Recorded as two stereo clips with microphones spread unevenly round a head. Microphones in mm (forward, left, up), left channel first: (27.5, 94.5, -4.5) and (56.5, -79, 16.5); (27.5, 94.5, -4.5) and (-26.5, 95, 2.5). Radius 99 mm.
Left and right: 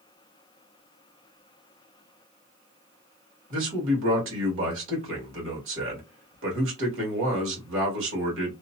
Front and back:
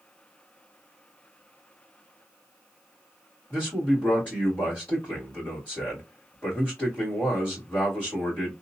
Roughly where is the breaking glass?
I don't hear breaking glass.